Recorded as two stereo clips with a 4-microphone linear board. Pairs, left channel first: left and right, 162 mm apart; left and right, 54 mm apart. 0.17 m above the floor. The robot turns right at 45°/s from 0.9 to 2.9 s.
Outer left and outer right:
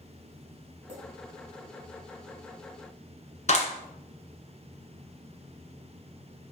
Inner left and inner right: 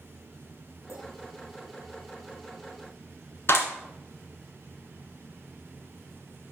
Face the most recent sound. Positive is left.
turn(degrees=50)  # may be behind; listen again after turning